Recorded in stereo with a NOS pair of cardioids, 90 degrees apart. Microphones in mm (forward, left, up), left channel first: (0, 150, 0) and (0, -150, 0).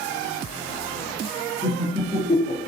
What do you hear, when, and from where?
1.6 s laughter: 5° right, 0.7 m; by 2.7 s 45° left, 0.6 m